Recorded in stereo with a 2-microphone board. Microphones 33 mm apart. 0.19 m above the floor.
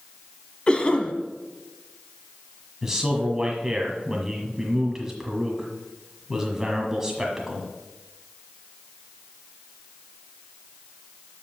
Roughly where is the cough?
Left.